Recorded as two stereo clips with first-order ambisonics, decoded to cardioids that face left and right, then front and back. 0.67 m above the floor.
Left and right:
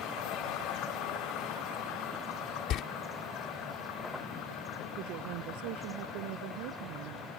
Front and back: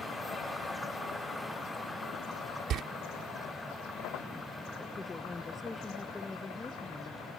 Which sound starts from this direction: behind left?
A door slam, at 2.7 s.